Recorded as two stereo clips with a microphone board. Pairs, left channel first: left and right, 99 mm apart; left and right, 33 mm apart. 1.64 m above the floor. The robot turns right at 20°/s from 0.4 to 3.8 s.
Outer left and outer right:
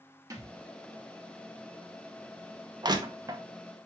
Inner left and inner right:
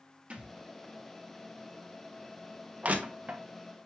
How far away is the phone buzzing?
I don't hear a phone buzzing.